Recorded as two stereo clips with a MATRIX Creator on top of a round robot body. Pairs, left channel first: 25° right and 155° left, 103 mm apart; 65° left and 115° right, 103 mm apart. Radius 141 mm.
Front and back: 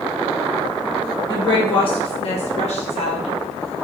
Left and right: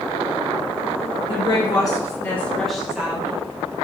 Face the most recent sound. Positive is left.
turn(degrees=-45)